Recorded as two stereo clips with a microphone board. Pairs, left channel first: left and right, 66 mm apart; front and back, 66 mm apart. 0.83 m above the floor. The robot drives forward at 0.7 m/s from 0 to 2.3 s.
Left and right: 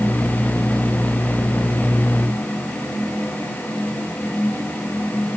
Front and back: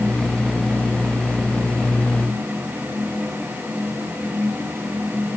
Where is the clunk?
No clunk in this recording.